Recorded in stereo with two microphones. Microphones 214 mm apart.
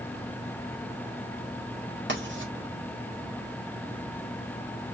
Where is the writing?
60° right (ahead or behind), 1.9 m.